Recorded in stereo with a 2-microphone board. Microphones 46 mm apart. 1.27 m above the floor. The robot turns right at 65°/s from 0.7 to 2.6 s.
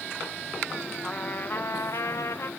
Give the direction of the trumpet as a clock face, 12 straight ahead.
11 o'clock.